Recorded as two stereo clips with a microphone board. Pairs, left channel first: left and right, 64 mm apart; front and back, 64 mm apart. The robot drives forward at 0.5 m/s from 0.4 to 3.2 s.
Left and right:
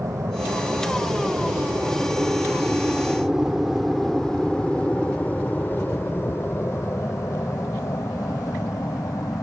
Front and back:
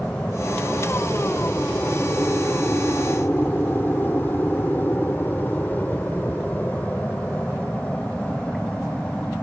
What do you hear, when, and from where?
0.0 s an aircraft: 70° right; by 9.4 s 70° left